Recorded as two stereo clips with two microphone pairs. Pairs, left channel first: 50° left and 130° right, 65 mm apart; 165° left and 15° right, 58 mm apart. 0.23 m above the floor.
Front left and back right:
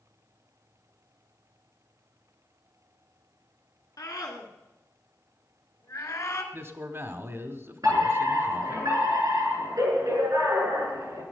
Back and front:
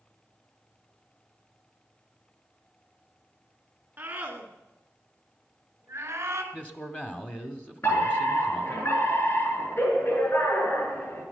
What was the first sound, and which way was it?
A scream, 45° left.